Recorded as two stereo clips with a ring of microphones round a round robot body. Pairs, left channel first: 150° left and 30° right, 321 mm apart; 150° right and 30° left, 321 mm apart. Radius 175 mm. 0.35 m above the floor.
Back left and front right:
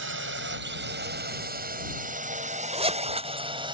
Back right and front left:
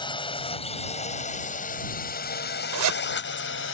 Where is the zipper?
40° left.